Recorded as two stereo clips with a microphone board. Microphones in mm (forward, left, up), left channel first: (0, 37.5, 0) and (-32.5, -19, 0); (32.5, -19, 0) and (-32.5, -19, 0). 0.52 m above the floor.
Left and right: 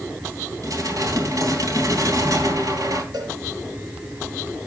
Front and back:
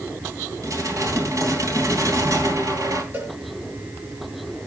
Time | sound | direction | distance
0.6 | dishes clattering | 150° right | 3 m
3.1 | a cowbell | 120° right | 4.5 m